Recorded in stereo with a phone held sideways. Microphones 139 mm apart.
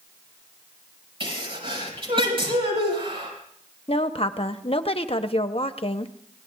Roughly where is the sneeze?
Right.